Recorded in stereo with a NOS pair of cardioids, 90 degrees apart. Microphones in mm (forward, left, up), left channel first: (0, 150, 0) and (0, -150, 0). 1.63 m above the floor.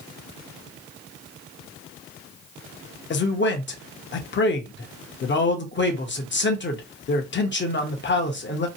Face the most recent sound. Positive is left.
turn(degrees=40)